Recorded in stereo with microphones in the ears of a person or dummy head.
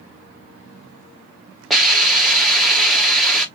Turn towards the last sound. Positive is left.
turn(degrees=0)  # may be behind; listen again after turning